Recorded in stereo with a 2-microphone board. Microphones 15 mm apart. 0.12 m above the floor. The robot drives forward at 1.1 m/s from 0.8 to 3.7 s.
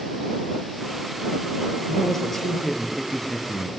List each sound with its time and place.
1.9 s a man speaking: 10° left (ahead or behind), 3.5 m; by 3.7 s 20° left (ahead or behind), 2.0 m